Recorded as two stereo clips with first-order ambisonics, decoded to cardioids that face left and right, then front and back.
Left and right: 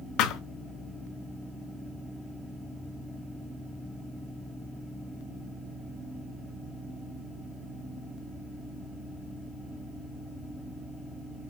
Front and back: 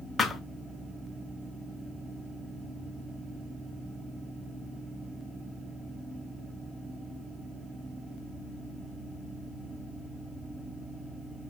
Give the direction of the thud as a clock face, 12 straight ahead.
10 o'clock.